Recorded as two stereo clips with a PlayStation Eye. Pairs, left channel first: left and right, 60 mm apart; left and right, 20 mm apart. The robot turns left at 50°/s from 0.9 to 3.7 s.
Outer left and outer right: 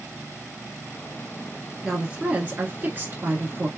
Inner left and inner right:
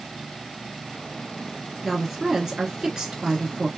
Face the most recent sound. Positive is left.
turn(degrees=-110)